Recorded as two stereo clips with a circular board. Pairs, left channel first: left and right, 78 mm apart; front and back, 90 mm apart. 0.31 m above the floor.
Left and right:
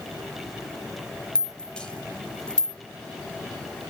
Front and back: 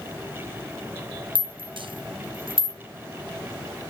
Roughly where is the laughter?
No laughter in this recording.